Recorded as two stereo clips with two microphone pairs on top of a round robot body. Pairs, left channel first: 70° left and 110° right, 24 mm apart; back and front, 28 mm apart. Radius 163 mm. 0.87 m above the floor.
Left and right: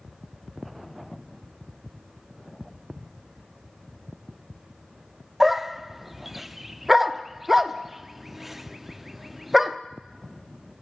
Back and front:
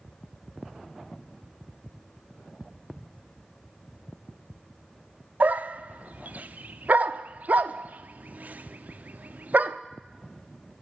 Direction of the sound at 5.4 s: 30° right.